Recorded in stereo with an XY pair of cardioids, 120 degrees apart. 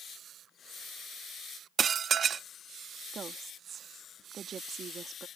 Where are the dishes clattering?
40° right.